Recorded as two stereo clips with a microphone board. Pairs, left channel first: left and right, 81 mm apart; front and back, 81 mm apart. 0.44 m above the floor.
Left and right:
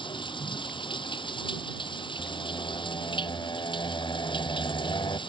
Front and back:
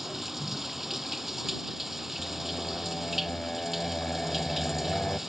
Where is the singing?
80° left.